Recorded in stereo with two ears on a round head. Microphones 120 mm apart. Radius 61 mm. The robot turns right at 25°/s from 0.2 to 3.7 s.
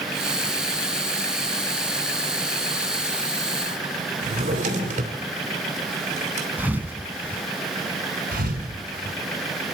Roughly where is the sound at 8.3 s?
Right.